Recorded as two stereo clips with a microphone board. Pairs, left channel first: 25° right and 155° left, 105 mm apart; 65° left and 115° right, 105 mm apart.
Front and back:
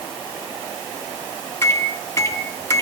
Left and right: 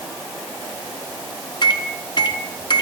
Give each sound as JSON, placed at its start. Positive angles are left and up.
{"t": 1.6, "sound": "a microwave", "azimuth_deg": 35, "distance_m": 2.0}